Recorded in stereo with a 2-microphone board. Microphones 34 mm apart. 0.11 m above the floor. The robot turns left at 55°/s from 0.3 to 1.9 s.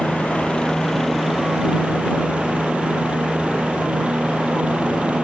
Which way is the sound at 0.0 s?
50° left.